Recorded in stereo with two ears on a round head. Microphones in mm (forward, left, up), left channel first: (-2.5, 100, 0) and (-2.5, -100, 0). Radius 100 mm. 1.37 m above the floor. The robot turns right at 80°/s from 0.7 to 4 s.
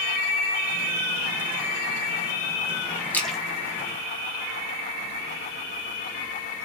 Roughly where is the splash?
Centre.